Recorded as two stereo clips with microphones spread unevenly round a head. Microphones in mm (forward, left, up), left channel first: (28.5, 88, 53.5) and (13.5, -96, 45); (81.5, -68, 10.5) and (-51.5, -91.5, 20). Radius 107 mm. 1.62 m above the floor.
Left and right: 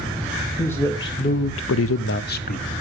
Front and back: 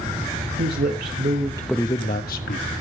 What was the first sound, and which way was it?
A man speaking, 165° left.